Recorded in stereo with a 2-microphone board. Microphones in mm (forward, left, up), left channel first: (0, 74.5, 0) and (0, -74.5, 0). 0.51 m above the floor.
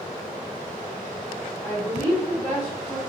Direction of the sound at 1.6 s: 25° left (ahead or behind).